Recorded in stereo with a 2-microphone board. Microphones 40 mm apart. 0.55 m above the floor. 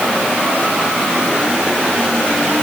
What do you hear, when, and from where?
Only background noise.